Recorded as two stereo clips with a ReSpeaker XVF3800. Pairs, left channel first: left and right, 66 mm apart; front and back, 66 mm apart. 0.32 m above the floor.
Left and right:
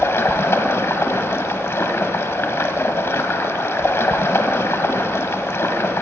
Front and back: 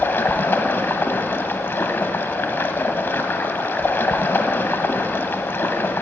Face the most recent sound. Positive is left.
turn(degrees=50)